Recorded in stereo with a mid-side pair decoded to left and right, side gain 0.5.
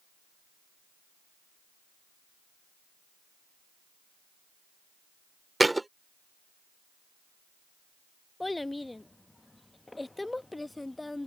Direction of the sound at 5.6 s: 10° right.